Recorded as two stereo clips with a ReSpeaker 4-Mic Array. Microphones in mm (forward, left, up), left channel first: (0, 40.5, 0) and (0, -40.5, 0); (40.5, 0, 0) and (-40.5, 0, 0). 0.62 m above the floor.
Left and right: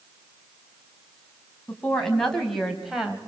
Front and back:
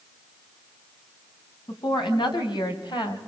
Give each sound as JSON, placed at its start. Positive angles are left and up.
{"t": 1.7, "sound": "a woman speaking", "azimuth_deg": 10, "distance_m": 5.0}